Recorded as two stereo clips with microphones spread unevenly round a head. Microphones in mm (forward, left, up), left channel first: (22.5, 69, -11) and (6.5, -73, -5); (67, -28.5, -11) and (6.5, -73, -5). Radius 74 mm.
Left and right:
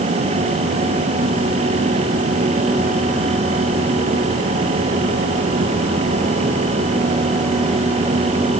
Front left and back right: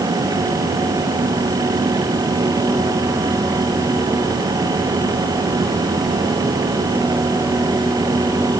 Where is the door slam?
I don't hear a door slam.